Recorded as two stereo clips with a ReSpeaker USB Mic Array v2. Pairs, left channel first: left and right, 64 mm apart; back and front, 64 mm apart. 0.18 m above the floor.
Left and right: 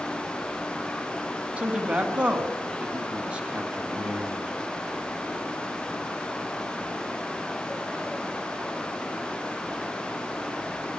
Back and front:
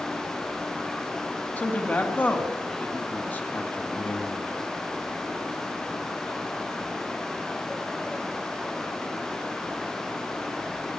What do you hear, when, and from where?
1.6 s a man speaking: 145° right, 1.3 m